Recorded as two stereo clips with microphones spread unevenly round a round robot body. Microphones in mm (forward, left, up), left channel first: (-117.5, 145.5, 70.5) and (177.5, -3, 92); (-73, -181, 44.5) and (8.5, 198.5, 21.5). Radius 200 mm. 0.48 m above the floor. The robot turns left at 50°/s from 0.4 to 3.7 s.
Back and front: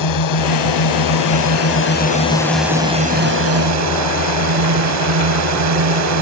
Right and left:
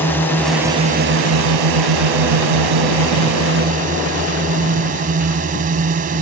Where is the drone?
175° left; by 6.2 s 10° left.